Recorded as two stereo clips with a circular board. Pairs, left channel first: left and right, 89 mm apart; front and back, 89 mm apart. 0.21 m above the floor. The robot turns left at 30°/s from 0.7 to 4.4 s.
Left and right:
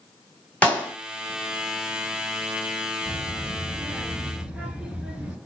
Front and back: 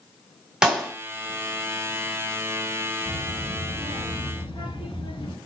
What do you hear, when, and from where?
0.6 s a clap: 110° left, 1.3 m; by 0.9 s 105° left, 1.3 m
3.0 s a child speaking: 30° left, 1.6 m; by 5.4 s 10° right, 1.6 m